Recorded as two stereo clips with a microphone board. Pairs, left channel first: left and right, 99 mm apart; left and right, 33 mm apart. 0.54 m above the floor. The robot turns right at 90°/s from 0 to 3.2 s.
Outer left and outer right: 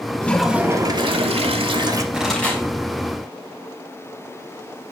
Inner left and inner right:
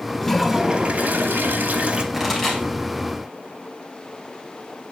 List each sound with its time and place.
0.2 s a toilet flushing: 160° left, 0.8 m; by 2.0 s 35° right, 0.8 m
2.1 s a pop: 15° right (ahead or behind), 3 m; by 2.6 s 25° left (ahead or behind), 3 m